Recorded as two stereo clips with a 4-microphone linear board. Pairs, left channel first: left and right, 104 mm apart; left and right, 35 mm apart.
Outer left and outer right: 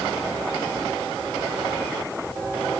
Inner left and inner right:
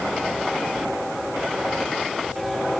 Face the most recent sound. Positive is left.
No sound to turn to.